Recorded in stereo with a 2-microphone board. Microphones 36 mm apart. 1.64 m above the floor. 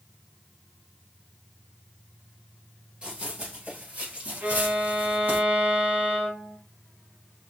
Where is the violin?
55° right (ahead or behind), 1.5 m.